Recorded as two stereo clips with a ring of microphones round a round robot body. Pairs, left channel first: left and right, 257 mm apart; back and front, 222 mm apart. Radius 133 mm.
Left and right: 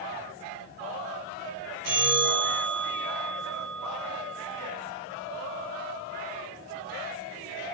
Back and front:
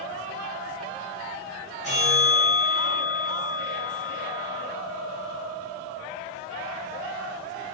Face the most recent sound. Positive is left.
turn(degrees=-120)